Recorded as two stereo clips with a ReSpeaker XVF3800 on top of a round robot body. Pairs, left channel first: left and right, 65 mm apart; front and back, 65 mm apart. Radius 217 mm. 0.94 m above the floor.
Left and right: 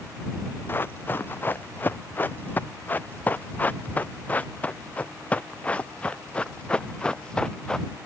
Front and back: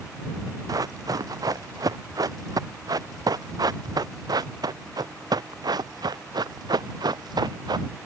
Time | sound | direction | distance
0.7 | running footsteps | 150° left | ?